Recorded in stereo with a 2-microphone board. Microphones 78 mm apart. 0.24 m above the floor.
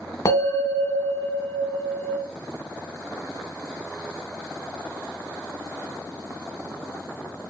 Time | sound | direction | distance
0.2 | a bell | 50° left (ahead or behind) | 1.4 m